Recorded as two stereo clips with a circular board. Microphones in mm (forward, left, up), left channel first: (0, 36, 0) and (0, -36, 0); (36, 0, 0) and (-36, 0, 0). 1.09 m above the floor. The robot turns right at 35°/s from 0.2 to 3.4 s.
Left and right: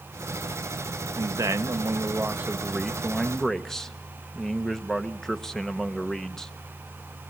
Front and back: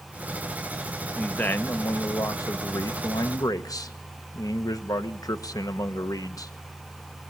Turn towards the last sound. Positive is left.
turn(degrees=10)